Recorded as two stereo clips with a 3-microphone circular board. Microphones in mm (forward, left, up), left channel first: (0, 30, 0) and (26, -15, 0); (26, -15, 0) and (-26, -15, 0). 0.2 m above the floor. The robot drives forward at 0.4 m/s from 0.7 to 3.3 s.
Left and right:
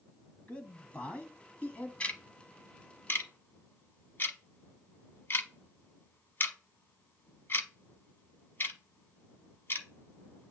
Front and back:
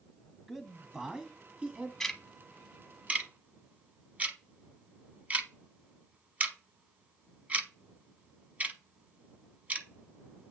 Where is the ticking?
80° left, 0.8 m; by 10.5 s 135° left, 0.9 m.